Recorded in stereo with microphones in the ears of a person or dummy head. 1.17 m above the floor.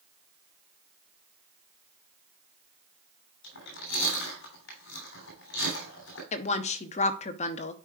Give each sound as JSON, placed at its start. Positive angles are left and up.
{"t": 3.4, "sound": "chewing", "side_deg": 70, "distance_m": 3.0}
{"t": 6.3, "sound": "a woman speaking", "side_deg": 40, "distance_m": 0.6}